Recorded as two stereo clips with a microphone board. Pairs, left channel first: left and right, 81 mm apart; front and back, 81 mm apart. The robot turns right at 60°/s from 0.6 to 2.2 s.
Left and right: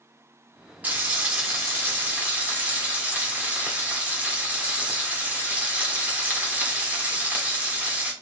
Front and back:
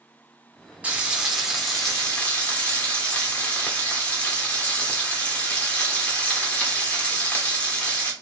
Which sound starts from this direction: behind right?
Frying, at 0.8 s.